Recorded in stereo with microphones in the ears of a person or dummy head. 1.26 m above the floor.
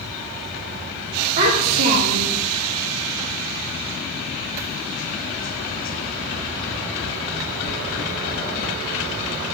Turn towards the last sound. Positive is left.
turn(degrees=-45)  # may be behind; listen again after turning